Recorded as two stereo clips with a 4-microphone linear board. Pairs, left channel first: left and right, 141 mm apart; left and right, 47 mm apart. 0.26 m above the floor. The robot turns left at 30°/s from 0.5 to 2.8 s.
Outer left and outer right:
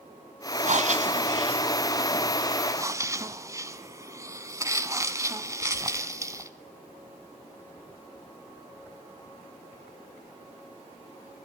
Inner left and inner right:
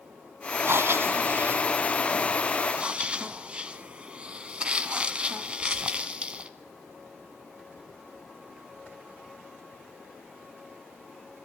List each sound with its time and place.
0.6 s breathing: 90° right, 1.3 m; by 6.5 s 155° right, 1.3 m